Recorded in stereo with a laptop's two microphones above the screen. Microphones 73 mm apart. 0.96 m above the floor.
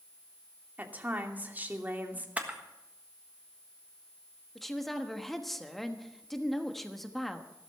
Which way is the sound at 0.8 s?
25° right (ahead or behind).